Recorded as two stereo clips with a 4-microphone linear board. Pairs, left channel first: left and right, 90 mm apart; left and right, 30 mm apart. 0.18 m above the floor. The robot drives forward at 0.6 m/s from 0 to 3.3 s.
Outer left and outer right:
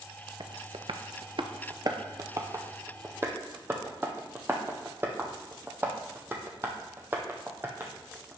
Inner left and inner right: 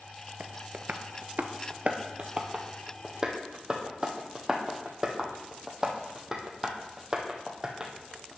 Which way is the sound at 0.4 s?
60° right (ahead or behind).